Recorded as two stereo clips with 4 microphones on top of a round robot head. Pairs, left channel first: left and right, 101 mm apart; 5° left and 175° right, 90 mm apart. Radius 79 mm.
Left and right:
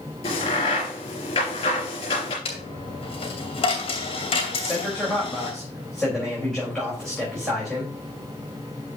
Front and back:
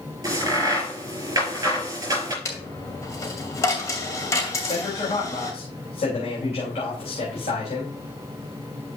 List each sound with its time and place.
0.2 s a crack: 135° left, 5.5 m
2.5 s a dropped coin: 65° left, 2.5 m
4.5 s a man speaking: 5° left, 3.5 m